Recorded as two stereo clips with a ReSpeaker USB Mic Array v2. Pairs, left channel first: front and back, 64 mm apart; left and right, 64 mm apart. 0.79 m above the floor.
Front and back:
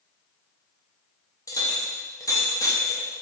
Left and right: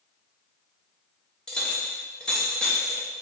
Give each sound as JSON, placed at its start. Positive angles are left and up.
{"t": 1.5, "sound": "a clink", "azimuth_deg": 15, "distance_m": 0.6}